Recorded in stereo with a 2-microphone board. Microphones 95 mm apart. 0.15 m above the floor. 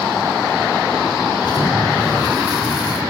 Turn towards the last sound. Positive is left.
turn(degrees=50)  # may be behind; listen again after turning